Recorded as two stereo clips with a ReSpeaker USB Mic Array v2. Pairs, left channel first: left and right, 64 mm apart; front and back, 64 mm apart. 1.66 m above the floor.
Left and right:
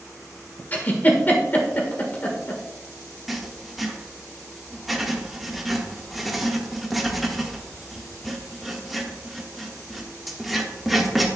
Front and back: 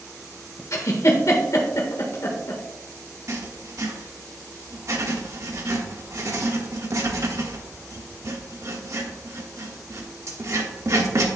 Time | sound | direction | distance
0.7 | a giggle | 30° left | 1.4 m
3.3 | writing | 175° right | 1.3 m